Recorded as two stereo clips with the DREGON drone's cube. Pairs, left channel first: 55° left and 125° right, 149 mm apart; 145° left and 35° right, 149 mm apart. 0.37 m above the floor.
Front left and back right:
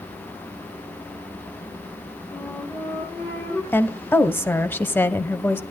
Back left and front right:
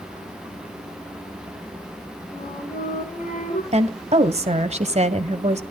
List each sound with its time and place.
2.3 s a flute: 130° left, 8 m
3.7 s a woman speaking: 15° right, 1.5 m